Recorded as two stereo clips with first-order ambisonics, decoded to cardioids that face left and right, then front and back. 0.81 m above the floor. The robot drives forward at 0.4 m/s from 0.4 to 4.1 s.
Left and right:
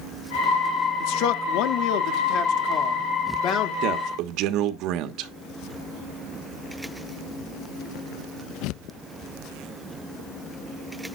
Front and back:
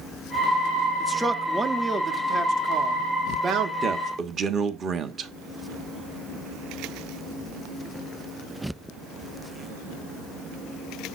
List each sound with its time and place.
1.0 s a man speaking: 85° left, 1.2 m; by 3.7 s 130° left, 1.6 m
3.8 s a man speaking: 110° right, 1.1 m; by 5.3 s 115° right, 1.2 m